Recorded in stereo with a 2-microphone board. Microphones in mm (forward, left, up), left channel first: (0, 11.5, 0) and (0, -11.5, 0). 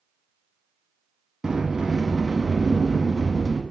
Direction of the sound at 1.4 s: 35° right (ahead or behind).